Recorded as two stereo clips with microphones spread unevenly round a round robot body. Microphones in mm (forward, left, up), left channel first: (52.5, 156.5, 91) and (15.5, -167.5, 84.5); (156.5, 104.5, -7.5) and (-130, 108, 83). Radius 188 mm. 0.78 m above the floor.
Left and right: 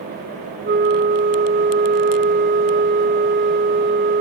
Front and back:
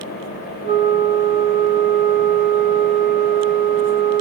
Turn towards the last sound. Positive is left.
turn(degrees=-115)